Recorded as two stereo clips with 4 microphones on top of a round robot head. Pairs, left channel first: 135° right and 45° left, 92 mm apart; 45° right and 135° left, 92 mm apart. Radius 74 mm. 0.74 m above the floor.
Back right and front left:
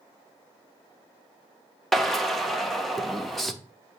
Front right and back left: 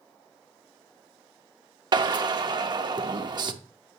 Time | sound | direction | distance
1.9 | a drill | 135° left | 1.0 m